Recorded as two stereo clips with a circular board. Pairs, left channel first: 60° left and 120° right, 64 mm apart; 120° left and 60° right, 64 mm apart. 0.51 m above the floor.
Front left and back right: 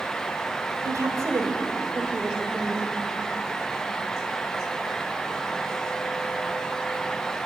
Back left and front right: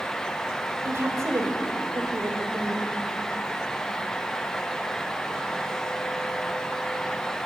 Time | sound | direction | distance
0.8 | a woman speaking | 100° right | 2.5 m